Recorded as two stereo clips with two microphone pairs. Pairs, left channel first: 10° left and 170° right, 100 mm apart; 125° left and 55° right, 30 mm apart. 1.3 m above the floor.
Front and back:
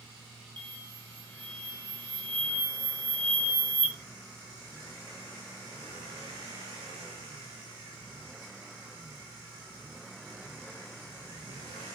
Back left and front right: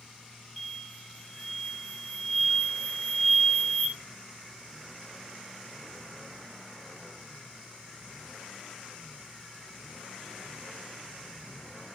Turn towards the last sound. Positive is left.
turn(degrees=-145)